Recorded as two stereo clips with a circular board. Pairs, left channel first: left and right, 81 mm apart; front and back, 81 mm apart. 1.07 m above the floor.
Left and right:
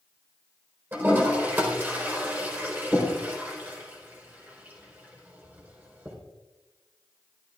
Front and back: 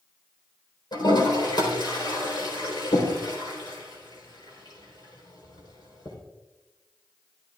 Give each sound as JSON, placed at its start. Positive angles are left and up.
{"t": 0.9, "sound": "a toilet flushing", "azimuth_deg": -25, "distance_m": 4.0}